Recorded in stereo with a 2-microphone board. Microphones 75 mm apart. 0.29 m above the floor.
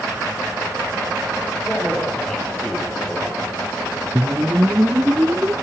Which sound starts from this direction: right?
A whoosh, at 4.2 s.